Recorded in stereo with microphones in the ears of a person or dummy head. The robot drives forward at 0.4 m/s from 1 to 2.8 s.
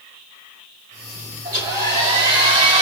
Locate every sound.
1.4 s a hair dryer: 25° right (ahead or behind), 1.8 m; by 2.8 s 30° right (ahead or behind), 1.5 m